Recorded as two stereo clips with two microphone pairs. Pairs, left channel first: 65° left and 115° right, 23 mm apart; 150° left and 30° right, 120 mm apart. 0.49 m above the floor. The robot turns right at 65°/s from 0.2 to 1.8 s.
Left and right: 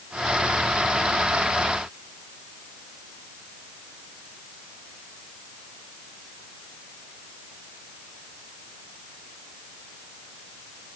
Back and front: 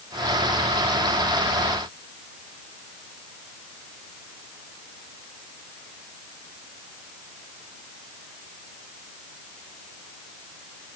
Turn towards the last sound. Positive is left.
No sound to turn to.